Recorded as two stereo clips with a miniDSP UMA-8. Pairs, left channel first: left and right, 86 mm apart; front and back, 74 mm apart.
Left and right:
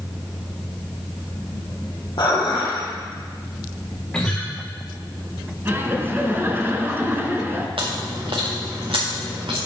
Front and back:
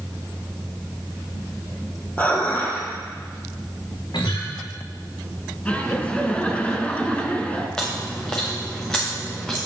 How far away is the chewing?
About 3.5 m.